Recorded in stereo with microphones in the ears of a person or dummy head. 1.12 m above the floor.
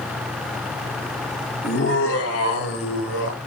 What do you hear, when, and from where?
1.6 s laughter: 50° left (ahead or behind), 1.9 m; by 3.4 s 55° left (ahead or behind), 3 m